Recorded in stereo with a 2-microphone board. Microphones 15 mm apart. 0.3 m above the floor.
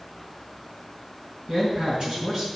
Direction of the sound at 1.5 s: 50° right (ahead or behind).